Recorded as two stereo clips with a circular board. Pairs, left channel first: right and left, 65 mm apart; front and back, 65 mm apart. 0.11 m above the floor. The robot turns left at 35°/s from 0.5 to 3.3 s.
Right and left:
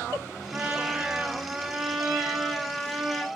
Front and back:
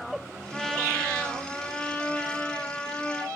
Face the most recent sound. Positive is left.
turn(degrees=-10)